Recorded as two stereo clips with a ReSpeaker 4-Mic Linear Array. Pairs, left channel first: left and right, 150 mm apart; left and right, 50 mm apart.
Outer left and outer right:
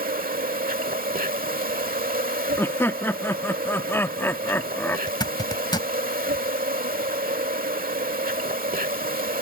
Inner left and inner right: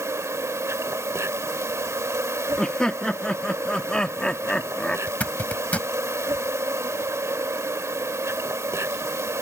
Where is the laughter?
15° left (ahead or behind).